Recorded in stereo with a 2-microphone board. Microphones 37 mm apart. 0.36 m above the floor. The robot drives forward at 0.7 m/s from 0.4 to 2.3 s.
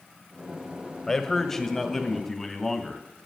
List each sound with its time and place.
1.1 s a man speaking: 10° left (ahead or behind), 1.2 m; by 3.0 s 5° left (ahead or behind), 2.0 m